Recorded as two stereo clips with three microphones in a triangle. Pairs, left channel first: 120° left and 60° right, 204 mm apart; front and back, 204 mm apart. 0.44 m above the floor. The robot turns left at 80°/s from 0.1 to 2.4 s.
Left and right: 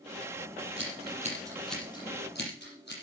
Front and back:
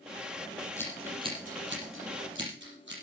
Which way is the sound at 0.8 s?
75° right.